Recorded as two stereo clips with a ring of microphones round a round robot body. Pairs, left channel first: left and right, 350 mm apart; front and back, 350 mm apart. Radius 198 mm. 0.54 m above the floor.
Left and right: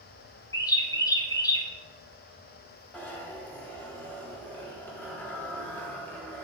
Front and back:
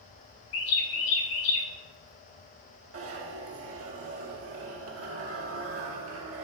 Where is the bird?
10° left, 1.3 m.